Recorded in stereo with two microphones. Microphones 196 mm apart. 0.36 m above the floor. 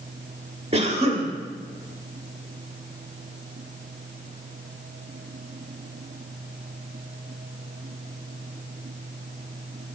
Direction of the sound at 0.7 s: 30° right (ahead or behind).